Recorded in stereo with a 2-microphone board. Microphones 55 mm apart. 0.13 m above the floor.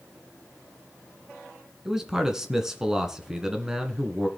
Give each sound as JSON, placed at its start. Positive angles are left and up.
{"t": 1.9, "sound": "a man speaking", "side_deg": -10, "distance_m": 1.7}